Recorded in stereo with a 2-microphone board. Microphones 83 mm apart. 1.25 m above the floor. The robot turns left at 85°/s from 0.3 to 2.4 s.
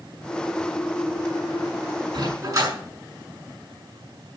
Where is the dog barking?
70° right (ahead or behind), 6 m; by 2.7 s 50° right (ahead or behind), 6 m.